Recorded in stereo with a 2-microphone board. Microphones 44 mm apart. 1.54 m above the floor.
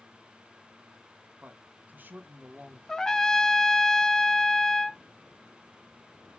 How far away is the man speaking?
About 1.9 m.